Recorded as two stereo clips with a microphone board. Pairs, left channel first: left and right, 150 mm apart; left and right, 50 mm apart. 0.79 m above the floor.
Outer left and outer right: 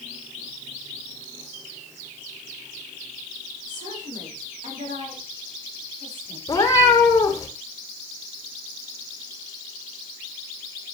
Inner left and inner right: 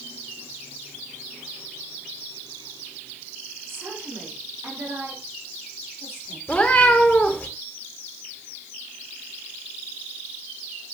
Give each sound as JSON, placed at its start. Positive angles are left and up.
{"t": 3.7, "sound": "a woman speaking", "side_deg": -60, "distance_m": 6.5}
{"t": 6.5, "sound": "a cat meowing", "side_deg": 25, "distance_m": 2.0}